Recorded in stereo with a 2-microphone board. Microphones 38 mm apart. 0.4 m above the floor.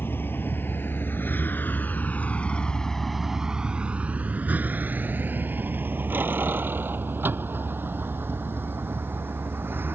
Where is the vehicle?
80° left; by 9.9 s 75° right (ahead or behind).